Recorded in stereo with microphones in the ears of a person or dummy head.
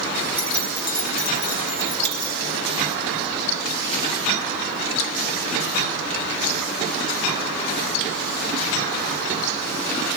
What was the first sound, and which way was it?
Keys jangling, 30° left (ahead or behind).